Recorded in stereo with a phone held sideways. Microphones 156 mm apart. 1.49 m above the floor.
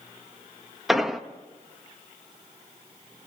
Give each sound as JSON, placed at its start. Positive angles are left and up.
{"t": 0.9, "sound": "an explosion", "side_deg": 0, "distance_m": 1.0}